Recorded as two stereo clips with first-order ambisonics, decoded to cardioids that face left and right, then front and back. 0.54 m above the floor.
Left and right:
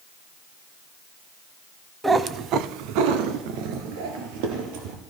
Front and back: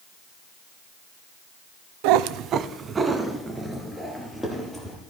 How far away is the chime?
No chime in this recording.